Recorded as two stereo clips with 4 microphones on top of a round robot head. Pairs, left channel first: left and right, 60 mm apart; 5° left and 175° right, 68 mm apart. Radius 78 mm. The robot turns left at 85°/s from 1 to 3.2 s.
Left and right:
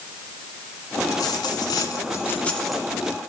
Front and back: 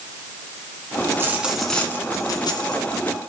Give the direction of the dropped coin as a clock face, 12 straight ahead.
7 o'clock.